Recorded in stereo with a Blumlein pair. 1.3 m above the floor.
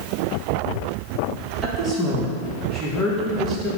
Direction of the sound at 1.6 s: 10° right.